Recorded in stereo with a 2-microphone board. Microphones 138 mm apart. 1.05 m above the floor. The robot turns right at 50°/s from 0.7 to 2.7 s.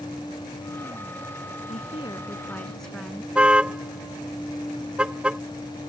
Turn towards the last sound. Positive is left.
turn(degrees=-5)  # may be behind; listen again after turning